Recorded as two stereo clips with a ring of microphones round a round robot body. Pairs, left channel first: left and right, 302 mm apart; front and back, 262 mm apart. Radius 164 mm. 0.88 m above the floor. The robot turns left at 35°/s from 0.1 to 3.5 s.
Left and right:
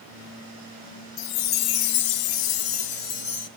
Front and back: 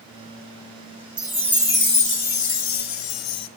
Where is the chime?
95° left, 1.9 m; by 3.5 s 15° left, 1.9 m.